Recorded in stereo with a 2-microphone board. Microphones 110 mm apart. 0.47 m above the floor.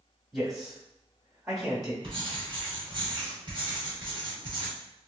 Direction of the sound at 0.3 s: 5° right (ahead or behind).